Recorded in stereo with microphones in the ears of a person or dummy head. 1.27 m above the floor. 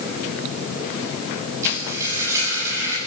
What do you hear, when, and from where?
1.6 s frying: 15° right (ahead or behind), 9.5 m